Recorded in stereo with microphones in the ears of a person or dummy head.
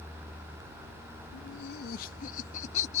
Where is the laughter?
65° left (ahead or behind); by 3.0 s 35° left (ahead or behind).